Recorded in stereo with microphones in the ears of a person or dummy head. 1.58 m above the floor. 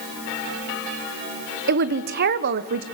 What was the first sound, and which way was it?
A woman speaking, 50° right (ahead or behind).